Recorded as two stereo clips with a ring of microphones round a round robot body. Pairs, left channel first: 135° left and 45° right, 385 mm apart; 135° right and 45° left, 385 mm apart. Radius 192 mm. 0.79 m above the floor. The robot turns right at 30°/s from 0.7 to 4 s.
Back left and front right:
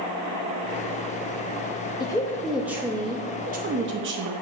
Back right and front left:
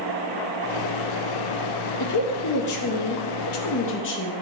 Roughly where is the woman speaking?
Behind right.